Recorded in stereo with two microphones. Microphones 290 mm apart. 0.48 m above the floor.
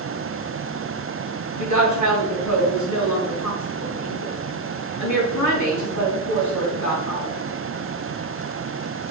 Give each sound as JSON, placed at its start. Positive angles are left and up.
{"t": 1.6, "sound": "a woman speaking", "side_deg": 75, "distance_m": 5.0}